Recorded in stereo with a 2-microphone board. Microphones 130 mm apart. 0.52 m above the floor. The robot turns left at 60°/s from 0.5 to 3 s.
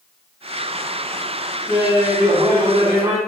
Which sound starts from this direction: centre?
Laughter, at 1.7 s.